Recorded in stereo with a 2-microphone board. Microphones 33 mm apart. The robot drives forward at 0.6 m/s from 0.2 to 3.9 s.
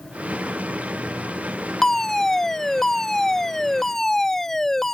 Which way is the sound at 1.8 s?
10° left (ahead or behind).